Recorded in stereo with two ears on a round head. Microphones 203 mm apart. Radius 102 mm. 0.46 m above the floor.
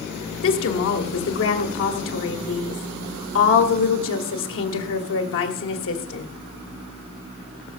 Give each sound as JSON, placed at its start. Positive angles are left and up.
{"t": 0.4, "sound": "a woman speaking", "side_deg": 60, "distance_m": 1.6}